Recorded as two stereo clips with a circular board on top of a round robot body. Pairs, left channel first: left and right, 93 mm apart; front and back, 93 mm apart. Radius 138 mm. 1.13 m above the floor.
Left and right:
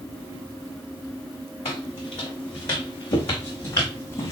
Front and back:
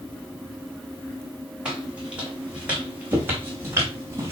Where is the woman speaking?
No woman speaking in this recording.